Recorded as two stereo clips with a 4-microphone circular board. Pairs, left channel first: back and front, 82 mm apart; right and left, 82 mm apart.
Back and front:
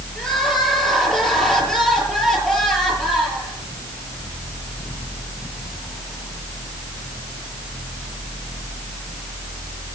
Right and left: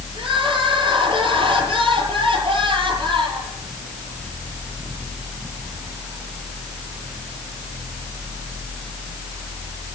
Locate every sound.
0.1 s crying: 95° left, 8 m